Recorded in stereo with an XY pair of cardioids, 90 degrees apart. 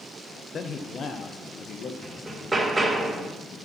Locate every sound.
0.5 s a man speaking: 55° left, 1.0 m; by 1.9 s 65° left, 1.6 m
2.0 s hammering: 15° right, 1.7 m